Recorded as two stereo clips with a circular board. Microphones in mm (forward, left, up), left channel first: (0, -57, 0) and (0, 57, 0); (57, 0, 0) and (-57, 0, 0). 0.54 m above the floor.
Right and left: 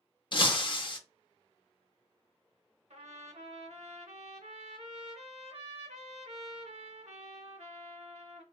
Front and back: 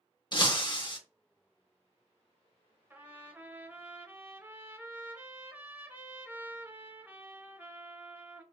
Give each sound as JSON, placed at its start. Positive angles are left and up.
{"t": 0.3, "sound": "breaking glass", "azimuth_deg": -45, "distance_m": 0.5}
{"t": 2.9, "sound": "a trumpet", "azimuth_deg": 105, "distance_m": 0.7}